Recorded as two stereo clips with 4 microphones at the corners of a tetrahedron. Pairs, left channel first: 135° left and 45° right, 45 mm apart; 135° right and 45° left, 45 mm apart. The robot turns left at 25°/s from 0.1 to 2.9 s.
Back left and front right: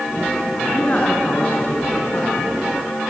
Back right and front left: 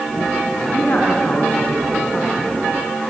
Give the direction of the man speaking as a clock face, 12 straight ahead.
6 o'clock.